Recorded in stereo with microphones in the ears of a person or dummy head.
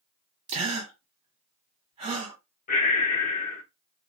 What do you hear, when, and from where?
0.5 s a gasp: 25° right (ahead or behind), 1.2 m
2.7 s breathing: 40° left (ahead or behind), 0.9 m